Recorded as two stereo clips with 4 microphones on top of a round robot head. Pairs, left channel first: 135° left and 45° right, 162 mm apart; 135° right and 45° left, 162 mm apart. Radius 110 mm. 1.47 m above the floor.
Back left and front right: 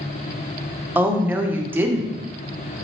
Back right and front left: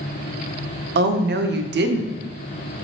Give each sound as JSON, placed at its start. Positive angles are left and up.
{"t": 0.9, "sound": "a woman speaking", "azimuth_deg": 35, "distance_m": 0.6}